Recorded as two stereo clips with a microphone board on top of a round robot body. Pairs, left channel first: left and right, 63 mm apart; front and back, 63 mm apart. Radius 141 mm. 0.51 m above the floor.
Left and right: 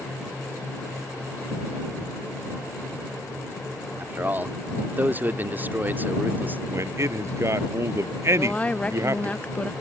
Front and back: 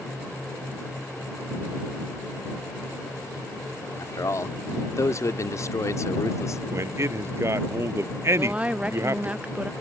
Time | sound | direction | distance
4.0 | a man speaking | 30° right | ?
6.7 | a man speaking | 135° right | ?
8.4 | a woman speaking | 135° left | ?